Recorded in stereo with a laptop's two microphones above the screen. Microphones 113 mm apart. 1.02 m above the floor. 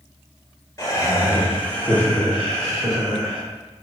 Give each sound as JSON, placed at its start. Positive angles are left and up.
{"t": 0.8, "sound": "laughter", "side_deg": 25, "distance_m": 0.7}